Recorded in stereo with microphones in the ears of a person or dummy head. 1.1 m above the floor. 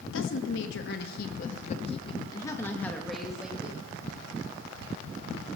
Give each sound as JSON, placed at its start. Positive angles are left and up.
{"t": 0.1, "sound": "a woman speaking", "side_deg": 70, "distance_m": 1.9}